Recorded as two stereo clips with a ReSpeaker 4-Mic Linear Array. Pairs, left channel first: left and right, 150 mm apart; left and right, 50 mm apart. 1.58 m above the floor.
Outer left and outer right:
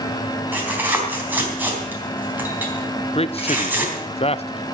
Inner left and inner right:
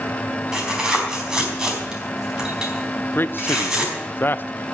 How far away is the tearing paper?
About 4 m.